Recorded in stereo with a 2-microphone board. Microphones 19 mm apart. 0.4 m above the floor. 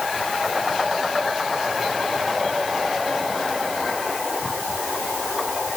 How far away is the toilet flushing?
No toilet flushing in this recording.